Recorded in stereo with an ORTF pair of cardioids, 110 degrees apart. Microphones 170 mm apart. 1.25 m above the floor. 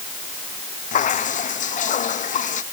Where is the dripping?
45° left.